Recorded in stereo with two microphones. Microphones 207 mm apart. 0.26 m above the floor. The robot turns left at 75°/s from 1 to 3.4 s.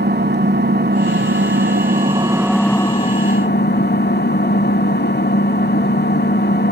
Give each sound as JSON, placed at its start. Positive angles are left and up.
{"t": 0.0, "sound": "an engine running", "azimuth_deg": -65, "distance_m": 0.8}